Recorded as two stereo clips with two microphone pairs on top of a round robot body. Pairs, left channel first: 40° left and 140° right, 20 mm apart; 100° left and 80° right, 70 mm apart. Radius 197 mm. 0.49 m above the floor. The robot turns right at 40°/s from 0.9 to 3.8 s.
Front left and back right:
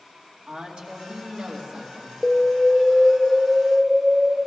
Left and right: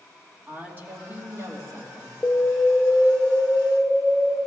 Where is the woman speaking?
135° right, 2.5 m; by 2.1 s 90° right, 2.5 m.